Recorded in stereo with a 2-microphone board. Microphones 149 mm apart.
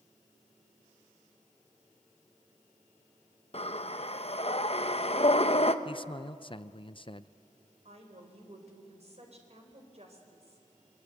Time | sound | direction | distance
3.5 | breathing | 45° left (ahead or behind) | 0.9 m
5.8 | a man speaking | 40° left (ahead or behind) | 0.6 m
7.8 | a woman speaking | 50° right (ahead or behind) | 4 m